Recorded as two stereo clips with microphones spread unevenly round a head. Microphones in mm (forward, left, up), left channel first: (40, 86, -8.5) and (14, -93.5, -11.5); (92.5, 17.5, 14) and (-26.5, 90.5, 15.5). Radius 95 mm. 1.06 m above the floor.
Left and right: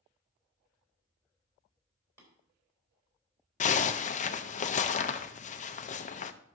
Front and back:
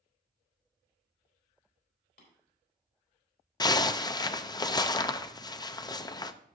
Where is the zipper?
30° left, 0.5 m.